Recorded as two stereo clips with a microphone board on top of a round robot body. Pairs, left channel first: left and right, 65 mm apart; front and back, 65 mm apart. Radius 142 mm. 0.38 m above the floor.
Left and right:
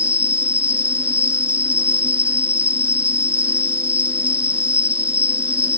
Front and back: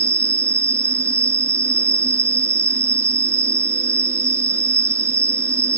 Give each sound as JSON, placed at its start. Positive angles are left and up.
{"t": 0.0, "sound": "an insect", "azimuth_deg": -155}